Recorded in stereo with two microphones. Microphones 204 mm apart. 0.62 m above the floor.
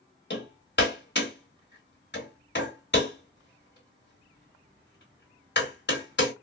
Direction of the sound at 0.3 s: 55° left (ahead or behind).